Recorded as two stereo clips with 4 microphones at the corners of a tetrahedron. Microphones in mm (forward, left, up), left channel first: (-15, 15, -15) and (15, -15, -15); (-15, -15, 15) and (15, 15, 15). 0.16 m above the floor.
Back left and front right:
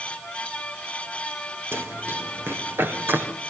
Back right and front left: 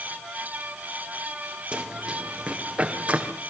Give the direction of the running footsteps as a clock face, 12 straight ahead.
1 o'clock.